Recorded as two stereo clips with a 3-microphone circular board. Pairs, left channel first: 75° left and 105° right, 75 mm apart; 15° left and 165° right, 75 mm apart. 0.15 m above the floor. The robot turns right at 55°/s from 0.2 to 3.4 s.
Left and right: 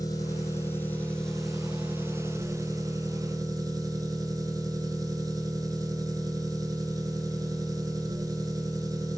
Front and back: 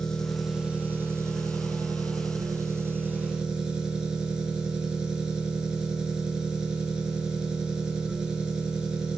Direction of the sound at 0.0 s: 95° left.